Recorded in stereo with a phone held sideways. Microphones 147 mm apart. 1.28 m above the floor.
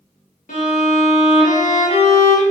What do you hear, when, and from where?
0.5 s a violin: 65° left (ahead or behind), 1.7 m